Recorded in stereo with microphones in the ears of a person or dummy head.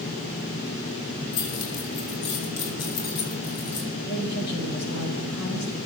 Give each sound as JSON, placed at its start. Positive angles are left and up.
{"t": 1.3, "sound": "keys jangling", "side_deg": 80, "distance_m": 6.0}
{"t": 4.1, "sound": "a woman speaking", "side_deg": 55, "distance_m": 7.0}